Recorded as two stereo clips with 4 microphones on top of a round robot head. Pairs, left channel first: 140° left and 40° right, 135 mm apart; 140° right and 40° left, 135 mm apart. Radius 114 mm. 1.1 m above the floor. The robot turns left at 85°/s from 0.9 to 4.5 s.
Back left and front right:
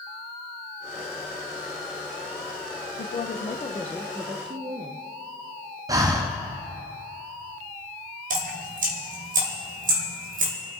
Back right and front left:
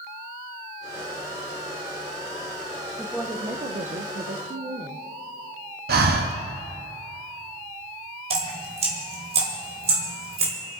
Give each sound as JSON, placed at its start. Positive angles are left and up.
{"t": 3.0, "sound": "a woman speaking", "azimuth_deg": 135, "distance_m": 1.0}
{"t": 5.9, "sound": "breathing", "azimuth_deg": 25, "distance_m": 0.8}
{"t": 8.3, "sound": "dripping", "azimuth_deg": -10, "distance_m": 1.9}